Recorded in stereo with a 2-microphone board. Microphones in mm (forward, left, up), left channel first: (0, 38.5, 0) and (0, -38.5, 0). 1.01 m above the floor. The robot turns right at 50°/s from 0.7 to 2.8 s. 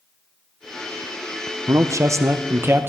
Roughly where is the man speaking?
Right.